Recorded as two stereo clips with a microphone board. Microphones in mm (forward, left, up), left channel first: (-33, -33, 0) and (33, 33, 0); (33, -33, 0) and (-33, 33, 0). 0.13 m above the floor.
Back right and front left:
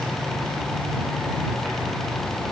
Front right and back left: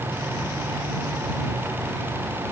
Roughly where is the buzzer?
I don't hear a buzzer.